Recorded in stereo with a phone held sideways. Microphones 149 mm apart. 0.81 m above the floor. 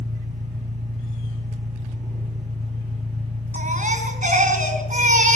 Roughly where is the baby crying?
Right.